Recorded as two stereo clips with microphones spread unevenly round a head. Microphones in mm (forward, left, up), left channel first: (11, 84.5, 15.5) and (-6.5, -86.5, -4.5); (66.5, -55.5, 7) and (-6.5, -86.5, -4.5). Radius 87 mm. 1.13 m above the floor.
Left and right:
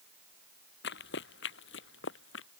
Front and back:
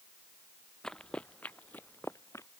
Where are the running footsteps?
105° left; by 2.5 s 95° left.